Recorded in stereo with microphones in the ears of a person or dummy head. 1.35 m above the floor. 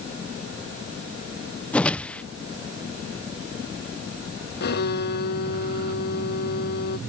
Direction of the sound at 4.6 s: 50° left (ahead or behind).